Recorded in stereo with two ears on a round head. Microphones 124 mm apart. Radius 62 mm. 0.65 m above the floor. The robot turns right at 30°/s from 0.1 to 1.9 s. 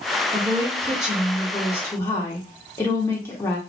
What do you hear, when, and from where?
0.3 s a woman speaking: 25° right, 1.2 m; by 3.6 s 20° left, 1.2 m